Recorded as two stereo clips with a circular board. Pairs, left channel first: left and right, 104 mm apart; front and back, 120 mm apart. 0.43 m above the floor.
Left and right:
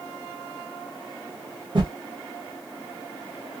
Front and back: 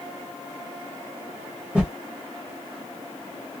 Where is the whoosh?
100° right, 1.5 m.